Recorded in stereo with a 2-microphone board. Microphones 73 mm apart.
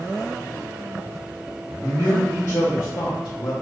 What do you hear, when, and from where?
1.8 s a man speaking: 55° left (ahead or behind), 1.2 m; by 3.5 s 65° left (ahead or behind), 0.7 m